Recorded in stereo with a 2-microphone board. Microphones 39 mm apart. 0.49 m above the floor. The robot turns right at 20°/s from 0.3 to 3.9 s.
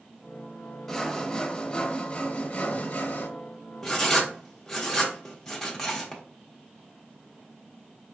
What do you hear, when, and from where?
0.9 s sawing: 5° left, 0.8 m; by 3.3 s 55° left, 0.8 m
3.8 s writing: 10° left (ahead or behind), 0.9 m